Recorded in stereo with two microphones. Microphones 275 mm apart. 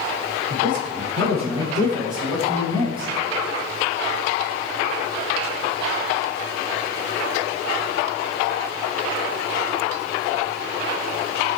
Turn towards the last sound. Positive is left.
turn(degrees=-60)  # may be behind; listen again after turning